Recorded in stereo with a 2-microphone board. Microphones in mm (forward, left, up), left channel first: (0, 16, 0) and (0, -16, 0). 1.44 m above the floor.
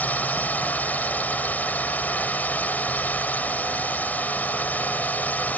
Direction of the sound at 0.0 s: 55° left (ahead or behind).